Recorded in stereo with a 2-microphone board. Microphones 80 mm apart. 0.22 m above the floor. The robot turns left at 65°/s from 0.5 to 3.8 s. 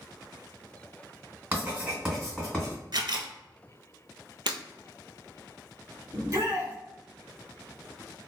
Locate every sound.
1.5 s writing: 20° right (ahead or behind), 1.8 m; by 2.8 s 20° left (ahead or behind), 1.8 m
2.9 s a camera shutter: 60° right (ahead or behind), 0.6 m; by 3.3 s 80° right, 0.6 m
4.5 s breaking glass: 80° right, 0.5 m
6.1 s a shout: 40° right (ahead or behind), 1.2 m